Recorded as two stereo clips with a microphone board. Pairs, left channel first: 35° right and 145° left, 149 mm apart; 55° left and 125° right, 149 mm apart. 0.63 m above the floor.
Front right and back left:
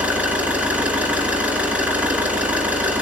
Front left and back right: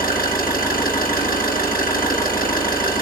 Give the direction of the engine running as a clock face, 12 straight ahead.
10 o'clock.